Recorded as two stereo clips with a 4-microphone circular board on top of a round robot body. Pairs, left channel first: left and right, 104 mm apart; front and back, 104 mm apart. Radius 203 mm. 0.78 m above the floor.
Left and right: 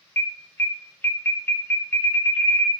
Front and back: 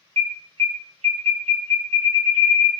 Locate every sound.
0.2 s an alarm: 160° left, 0.8 m